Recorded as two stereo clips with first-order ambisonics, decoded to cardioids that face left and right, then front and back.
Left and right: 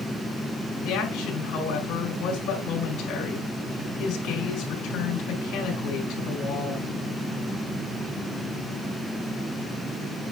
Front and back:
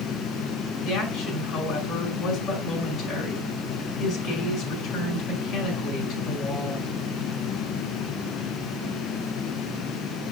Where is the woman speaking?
55° left, 5 m.